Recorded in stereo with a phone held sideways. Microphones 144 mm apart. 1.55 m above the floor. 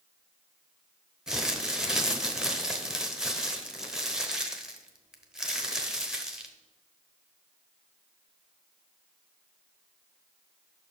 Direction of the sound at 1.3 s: 5° right (ahead or behind).